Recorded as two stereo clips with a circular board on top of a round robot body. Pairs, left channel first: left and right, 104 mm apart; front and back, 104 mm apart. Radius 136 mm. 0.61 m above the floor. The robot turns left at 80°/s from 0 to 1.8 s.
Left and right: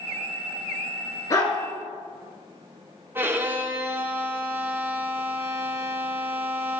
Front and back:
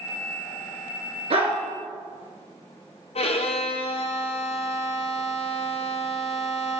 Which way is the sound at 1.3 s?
150° left.